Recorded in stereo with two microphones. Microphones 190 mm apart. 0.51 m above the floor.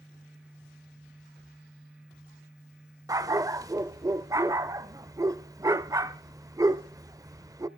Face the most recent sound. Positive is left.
turn(degrees=-20)  # may be behind; listen again after turning